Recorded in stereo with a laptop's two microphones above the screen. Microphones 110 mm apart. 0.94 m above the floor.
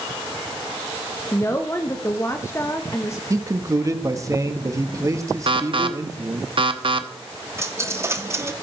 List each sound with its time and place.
1.3 s a woman speaking: 25° left (ahead or behind), 1.1 m
3.3 s a man speaking: 30° right (ahead or behind), 1.4 m
5.5 s an alarm: 50° right (ahead or behind), 0.8 m
7.6 s a dropped coin: 25° right (ahead or behind), 0.7 m